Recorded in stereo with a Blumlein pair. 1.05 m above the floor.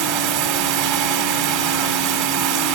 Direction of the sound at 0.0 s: 45° right.